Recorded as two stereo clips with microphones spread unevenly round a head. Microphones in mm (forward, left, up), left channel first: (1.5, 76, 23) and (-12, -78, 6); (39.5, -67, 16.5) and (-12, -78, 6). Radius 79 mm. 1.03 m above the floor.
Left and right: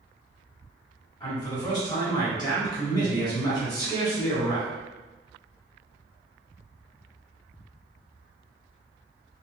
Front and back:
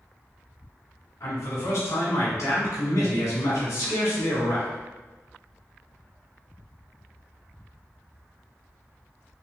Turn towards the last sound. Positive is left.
turn(degrees=20)